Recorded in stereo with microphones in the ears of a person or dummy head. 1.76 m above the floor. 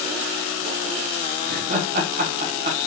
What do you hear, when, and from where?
1.4 s laughter: 45° right (ahead or behind), 1.0 m